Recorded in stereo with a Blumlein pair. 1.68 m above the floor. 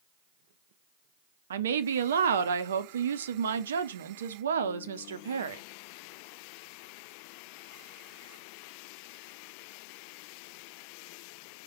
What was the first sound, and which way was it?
A woman speaking, 65° right.